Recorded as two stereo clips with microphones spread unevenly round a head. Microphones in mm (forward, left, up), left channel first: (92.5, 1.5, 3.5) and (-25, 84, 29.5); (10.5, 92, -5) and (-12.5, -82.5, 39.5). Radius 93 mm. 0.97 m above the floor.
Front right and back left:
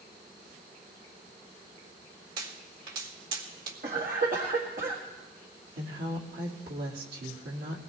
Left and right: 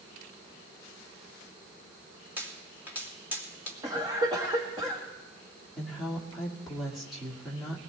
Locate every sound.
2.4 s a pop: straight behind, 2.5 m
3.8 s a cough: 170° right, 1.7 m
5.8 s a woman speaking: 170° left, 2 m